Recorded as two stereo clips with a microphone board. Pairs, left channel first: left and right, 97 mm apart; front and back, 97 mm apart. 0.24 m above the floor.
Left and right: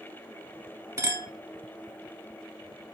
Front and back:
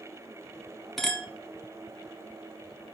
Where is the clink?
85° right, 0.6 m.